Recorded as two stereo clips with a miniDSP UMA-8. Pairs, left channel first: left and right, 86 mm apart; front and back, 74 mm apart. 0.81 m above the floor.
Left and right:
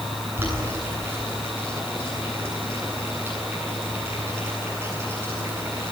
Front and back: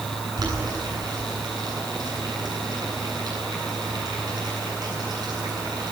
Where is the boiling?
155° right, 9 m.